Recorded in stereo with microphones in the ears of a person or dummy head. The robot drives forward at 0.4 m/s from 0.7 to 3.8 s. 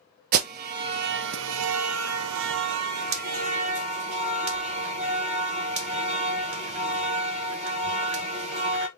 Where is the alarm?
50° right (ahead or behind), 0.7 m; by 8.9 s 35° right (ahead or behind), 1.0 m.